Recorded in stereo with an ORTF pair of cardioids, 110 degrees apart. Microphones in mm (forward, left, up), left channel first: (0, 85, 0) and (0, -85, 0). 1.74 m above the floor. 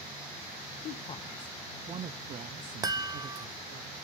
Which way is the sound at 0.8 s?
45° left.